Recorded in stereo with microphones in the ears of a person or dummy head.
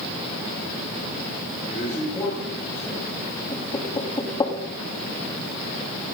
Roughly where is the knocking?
Left.